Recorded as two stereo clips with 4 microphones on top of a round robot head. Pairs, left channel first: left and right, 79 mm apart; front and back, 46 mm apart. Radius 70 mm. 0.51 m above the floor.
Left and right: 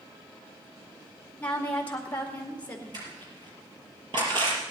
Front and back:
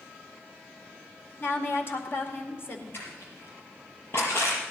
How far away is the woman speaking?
About 2 m.